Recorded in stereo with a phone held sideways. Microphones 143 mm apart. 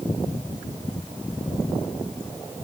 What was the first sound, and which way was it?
Only background noise.